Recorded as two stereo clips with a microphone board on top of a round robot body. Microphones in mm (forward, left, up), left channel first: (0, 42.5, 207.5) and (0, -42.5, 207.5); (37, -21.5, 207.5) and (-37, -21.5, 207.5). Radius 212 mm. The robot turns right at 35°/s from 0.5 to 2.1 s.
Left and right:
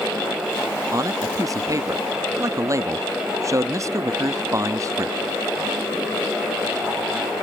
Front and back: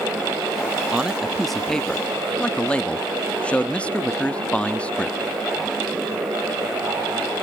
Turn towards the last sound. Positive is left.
turn(degrees=-65)